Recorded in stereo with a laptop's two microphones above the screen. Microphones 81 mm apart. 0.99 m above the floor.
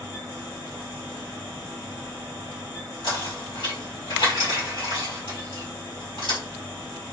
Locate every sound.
0.0 s a fan: 45° left (ahead or behind), 1.9 m
3.0 s knocking: 90° left, 2 m